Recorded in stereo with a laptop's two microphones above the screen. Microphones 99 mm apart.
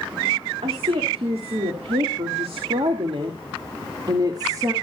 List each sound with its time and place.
0.6 s a woman speaking: 85° right, 2.5 m; by 4.7 s 35° right (ahead or behind), 1.9 m